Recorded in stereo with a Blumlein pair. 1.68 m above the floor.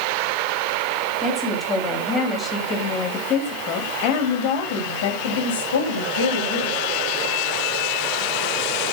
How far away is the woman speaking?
About 4 m.